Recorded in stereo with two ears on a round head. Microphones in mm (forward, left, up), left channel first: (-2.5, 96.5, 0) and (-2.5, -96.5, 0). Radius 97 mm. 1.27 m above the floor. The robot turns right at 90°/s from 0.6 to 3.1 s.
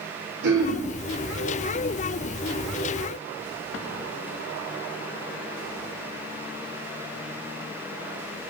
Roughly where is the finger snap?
I don't hear a finger snap.